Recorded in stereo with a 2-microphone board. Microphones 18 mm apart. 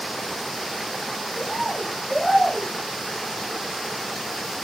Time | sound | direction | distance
1.4 | a bird | 30° right (ahead or behind) | 2 m